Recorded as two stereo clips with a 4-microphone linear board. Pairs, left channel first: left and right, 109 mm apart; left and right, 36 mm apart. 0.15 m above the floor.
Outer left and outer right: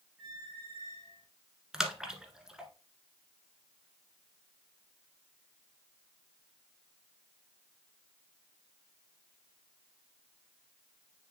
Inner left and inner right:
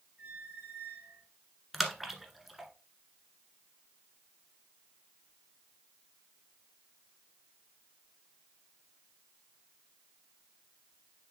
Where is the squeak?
45° right (ahead or behind), 3.5 m.